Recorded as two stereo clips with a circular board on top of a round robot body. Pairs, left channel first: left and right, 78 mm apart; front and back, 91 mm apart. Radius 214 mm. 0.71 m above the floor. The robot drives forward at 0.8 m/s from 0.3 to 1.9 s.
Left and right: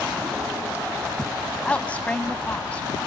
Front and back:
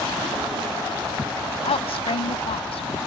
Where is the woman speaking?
15° left.